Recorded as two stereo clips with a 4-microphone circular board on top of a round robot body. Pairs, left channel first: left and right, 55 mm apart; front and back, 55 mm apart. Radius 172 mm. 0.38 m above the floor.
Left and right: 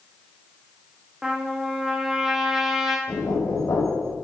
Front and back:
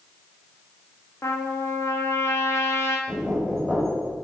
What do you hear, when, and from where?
1.2 s a trumpet: 10° right, 1.7 m
3.1 s knocking: 85° left, 2.5 m